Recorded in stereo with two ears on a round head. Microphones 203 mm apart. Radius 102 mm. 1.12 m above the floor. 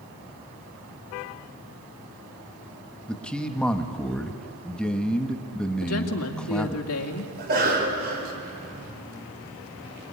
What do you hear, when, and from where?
3.1 s a man speaking: 5° left (ahead or behind), 1.4 m
5.8 s a woman speaking: 75° left (ahead or behind), 2.5 m
7.4 s a cough: 40° right (ahead or behind), 5 m